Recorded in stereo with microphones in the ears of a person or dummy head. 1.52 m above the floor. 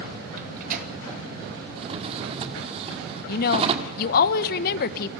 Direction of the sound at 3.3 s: 55° left (ahead or behind).